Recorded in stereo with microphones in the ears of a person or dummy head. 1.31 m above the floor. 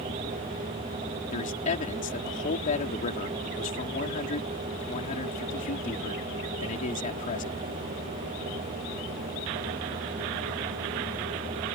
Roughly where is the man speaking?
Left.